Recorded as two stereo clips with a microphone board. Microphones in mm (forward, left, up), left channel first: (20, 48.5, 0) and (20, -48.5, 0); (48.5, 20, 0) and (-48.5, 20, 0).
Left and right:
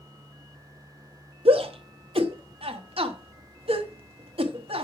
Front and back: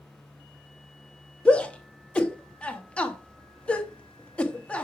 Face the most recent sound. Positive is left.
turn(degrees=-75)